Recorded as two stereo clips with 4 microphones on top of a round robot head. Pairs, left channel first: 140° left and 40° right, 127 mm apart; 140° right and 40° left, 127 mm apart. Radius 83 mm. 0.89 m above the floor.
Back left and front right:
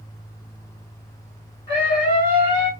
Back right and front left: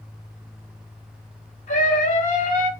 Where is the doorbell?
I don't hear a doorbell.